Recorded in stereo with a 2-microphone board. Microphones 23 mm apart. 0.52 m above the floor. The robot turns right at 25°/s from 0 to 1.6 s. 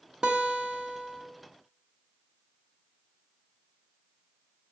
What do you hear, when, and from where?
0.2 s a guitar: 45° right (ahead or behind), 1.2 m; by 1.2 s 40° right (ahead or behind), 1.2 m